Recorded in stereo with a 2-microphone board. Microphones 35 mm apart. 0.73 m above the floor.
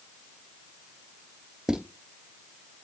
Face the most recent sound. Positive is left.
turn(degrees=-15)  # may be behind; listen again after turning